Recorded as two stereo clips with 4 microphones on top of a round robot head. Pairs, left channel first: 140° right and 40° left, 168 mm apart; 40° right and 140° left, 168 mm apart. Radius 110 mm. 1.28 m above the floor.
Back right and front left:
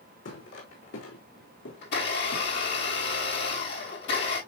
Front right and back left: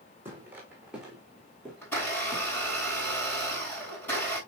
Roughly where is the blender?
Behind right.